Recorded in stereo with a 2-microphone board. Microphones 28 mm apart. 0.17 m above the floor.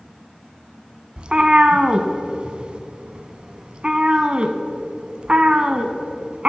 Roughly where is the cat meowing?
Right.